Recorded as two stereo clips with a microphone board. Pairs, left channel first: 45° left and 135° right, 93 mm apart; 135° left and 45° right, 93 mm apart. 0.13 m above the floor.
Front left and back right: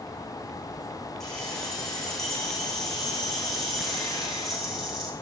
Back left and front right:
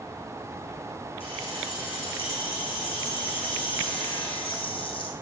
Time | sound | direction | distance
1.2 | keys jangling | 130° left | 7 m